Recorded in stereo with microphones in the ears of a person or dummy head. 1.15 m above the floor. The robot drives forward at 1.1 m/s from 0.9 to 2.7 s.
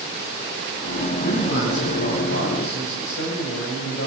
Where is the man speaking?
65° left (ahead or behind), 7.5 m; by 4.1 s 75° left (ahead or behind), 7 m.